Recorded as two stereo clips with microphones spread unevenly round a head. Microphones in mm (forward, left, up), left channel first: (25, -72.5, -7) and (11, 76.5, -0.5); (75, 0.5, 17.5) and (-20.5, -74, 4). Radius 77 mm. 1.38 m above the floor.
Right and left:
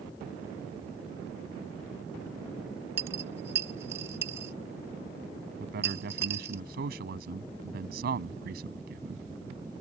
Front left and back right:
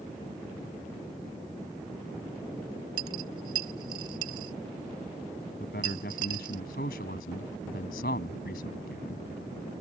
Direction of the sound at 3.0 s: 160° left.